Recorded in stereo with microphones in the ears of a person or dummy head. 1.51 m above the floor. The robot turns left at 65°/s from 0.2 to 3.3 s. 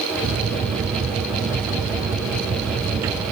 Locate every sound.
Only background noise.